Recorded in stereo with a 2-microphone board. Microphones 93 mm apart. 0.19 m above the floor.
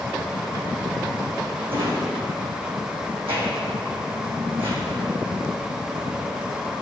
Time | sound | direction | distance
1.7 | a drawer | 80° right | 3 m